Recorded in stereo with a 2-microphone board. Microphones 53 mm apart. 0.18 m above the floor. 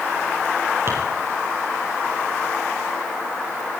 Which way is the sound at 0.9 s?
45° right (ahead or behind).